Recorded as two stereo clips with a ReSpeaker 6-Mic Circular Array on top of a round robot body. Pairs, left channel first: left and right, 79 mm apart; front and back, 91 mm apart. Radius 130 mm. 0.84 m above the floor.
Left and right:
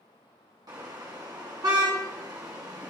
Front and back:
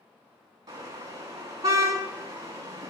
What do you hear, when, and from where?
0.7 s a car horn: 130° right, 5 m